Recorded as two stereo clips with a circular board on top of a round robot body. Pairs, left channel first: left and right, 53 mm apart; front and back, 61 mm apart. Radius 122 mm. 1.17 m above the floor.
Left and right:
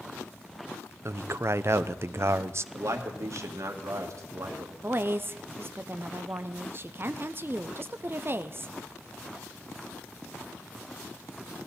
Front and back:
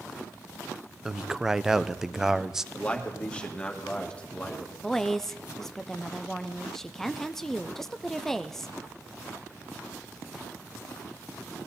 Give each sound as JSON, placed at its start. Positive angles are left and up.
{"t": 1.1, "sound": "a man speaking", "azimuth_deg": -100, "distance_m": 0.7}
{"t": 2.7, "sound": "a man speaking", "azimuth_deg": -70, "distance_m": 2.0}
{"t": 4.8, "sound": "a woman speaking", "azimuth_deg": -80, "distance_m": 0.7}